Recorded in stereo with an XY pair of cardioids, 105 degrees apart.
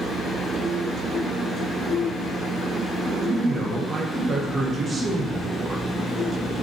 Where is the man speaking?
35° right, 0.6 m.